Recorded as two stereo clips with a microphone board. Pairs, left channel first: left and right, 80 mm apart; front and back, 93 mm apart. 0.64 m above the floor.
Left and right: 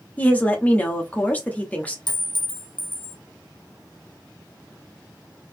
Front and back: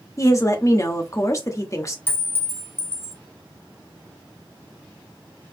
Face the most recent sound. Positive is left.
turn(degrees=70)